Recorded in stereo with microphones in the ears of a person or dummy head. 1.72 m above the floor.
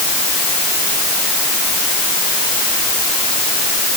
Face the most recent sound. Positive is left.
No sound to turn to.